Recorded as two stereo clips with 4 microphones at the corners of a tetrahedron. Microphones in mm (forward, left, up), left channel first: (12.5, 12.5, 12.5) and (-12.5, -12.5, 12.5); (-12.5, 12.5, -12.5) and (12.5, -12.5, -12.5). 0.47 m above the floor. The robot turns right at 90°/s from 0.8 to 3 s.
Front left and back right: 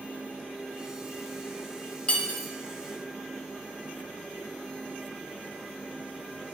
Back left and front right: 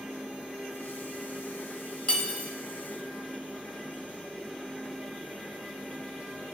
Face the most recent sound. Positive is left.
turn(degrees=175)